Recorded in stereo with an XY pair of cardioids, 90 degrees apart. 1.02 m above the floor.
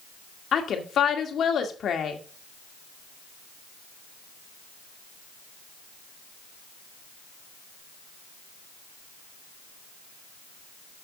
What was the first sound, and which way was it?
A woman speaking, 60° left.